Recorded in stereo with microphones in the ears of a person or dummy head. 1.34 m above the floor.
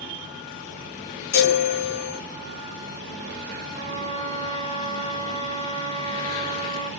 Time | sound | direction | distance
1.3 | a chime | 45° left (ahead or behind) | 0.6 m
3.8 | a trumpet | 30° right (ahead or behind) | 1.0 m